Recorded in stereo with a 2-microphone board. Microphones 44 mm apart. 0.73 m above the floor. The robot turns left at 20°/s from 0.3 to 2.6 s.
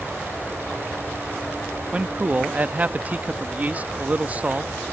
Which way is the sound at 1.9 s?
25° right (ahead or behind).